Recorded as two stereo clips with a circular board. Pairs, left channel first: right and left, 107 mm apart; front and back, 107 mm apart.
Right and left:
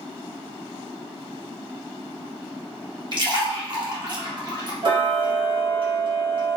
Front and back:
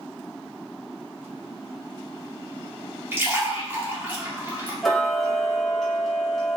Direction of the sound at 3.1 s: 120° left.